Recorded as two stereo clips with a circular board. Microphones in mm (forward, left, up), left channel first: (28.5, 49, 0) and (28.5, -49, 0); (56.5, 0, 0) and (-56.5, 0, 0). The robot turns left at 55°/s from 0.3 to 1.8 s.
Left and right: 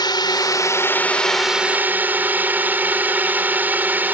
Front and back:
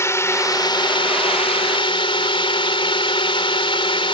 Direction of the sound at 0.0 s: 60° left.